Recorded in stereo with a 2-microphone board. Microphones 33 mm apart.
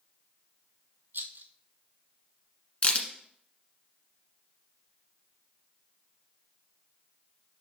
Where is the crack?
40° left (ahead or behind), 1.5 m.